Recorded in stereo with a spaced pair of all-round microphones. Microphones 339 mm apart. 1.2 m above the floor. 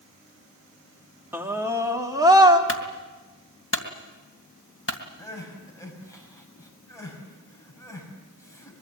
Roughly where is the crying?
Centre.